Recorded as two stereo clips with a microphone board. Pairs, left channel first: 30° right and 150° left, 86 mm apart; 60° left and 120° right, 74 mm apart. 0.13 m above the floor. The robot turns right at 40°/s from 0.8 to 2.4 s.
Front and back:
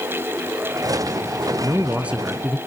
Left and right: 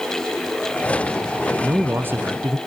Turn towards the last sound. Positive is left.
turn(degrees=-135)